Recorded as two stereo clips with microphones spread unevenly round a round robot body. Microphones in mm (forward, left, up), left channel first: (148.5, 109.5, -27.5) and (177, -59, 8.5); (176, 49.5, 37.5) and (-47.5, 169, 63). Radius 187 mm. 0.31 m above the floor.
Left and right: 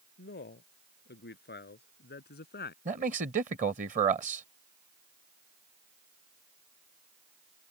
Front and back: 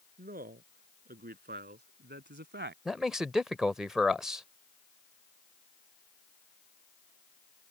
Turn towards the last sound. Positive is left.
turn(degrees=-115)